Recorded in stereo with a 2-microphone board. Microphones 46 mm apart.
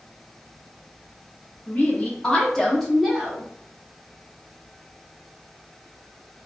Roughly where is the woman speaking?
Left.